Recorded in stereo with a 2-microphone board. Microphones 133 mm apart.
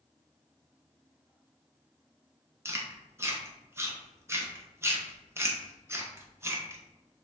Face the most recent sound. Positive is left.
turn(degrees=-20)  # may be behind; listen again after turning